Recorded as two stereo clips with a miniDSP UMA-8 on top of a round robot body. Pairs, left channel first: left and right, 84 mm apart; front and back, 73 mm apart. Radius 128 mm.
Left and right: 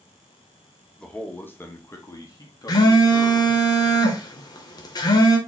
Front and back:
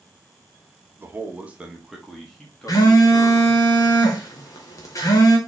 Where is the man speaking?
160° left, 1.1 m; by 3.5 s 65° left, 1.8 m.